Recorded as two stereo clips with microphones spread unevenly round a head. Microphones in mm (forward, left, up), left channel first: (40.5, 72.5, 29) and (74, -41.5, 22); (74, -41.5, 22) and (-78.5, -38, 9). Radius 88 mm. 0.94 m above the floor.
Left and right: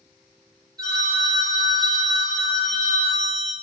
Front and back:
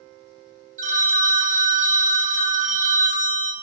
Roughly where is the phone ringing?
Behind right.